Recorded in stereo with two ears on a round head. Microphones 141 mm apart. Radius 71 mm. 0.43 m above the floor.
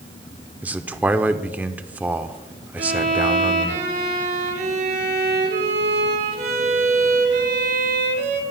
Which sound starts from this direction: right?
A violin, at 2.8 s.